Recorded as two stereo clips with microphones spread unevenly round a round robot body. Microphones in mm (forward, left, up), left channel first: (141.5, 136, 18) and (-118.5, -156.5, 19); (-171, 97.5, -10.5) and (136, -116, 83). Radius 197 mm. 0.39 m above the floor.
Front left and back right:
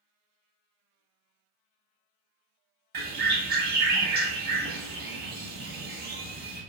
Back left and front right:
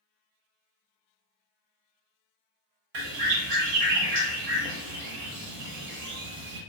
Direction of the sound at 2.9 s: 65° right.